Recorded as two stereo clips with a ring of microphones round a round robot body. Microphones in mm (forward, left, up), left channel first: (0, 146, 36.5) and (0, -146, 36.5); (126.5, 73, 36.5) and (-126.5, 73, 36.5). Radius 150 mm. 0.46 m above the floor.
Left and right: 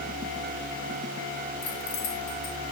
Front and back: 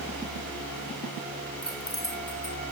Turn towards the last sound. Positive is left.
turn(degrees=75)